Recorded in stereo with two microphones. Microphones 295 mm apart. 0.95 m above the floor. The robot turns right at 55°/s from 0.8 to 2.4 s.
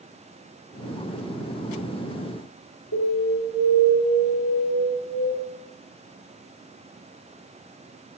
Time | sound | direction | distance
2.9 | an alarm | 70° left (ahead or behind) | 2.5 m